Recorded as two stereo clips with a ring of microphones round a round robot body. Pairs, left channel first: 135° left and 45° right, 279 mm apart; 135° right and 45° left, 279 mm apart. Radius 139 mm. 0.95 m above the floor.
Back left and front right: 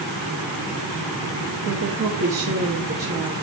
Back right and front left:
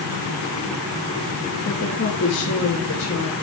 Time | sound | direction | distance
1.6 | a woman speaking | 85° right | 1.5 m